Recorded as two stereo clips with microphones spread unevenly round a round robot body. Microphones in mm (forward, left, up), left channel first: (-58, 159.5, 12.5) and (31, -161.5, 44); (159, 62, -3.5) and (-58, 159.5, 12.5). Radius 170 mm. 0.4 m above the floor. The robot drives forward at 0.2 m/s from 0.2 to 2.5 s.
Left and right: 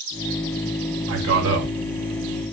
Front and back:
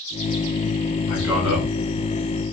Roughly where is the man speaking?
Behind right.